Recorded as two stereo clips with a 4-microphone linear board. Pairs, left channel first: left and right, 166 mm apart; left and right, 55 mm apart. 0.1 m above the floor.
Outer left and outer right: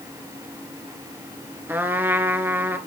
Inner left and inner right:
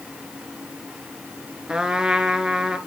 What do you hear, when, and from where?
1.7 s a trumpet: 15° right (ahead or behind), 1.1 m